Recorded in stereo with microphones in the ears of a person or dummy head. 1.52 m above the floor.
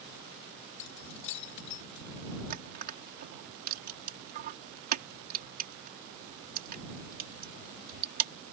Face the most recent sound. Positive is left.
turn(degrees=-50)  # may be behind; listen again after turning